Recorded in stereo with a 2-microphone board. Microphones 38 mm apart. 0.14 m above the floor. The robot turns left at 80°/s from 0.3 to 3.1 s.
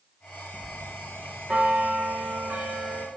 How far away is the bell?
About 3 m.